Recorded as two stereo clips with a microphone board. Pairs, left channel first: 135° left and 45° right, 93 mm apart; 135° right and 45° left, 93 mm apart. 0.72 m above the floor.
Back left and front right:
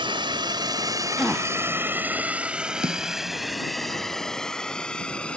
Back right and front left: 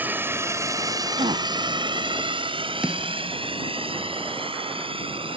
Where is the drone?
25° right; by 5.4 s 55° left.